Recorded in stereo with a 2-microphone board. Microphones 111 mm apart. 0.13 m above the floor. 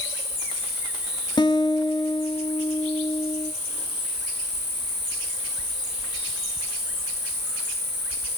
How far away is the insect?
About 7.5 m.